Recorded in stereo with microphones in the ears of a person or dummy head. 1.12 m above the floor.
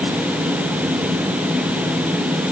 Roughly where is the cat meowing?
No cat meowing in this recording.